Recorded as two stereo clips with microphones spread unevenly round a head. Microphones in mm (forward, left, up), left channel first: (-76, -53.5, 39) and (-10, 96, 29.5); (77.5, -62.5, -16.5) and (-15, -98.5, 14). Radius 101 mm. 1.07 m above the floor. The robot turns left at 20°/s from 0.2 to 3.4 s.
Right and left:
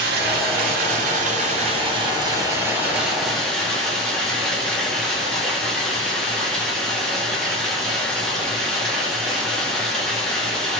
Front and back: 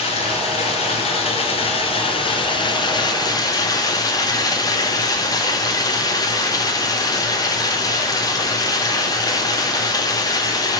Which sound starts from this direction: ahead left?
Running water, at 0.0 s.